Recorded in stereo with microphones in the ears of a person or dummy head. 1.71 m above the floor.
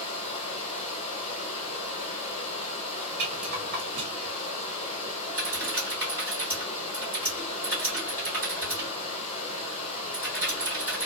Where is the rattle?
50° right (ahead or behind), 1.3 m.